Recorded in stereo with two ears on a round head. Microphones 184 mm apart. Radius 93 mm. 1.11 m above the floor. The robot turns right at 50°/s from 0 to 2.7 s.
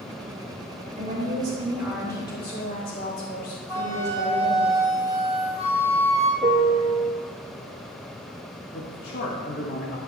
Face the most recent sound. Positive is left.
turn(degrees=55)  # may be behind; listen again after turning